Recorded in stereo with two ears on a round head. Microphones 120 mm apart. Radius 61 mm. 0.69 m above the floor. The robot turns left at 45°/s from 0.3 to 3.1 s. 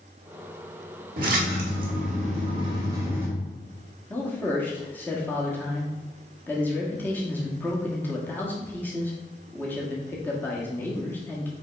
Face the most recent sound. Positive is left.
turn(degrees=15)  # may be behind; listen again after turning